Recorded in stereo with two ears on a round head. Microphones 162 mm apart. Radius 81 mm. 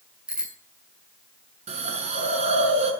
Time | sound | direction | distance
0.3 | a bicycle bell | 5° right (ahead or behind) | 7.5 m
1.7 | a hiss | 40° right (ahead or behind) | 6.5 m